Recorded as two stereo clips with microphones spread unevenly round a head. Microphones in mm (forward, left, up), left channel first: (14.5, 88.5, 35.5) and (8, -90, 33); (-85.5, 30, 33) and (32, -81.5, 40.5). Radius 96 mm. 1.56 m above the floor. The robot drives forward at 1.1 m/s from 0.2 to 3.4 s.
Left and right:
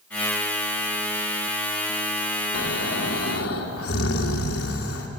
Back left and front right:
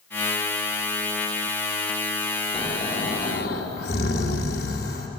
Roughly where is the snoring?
Left.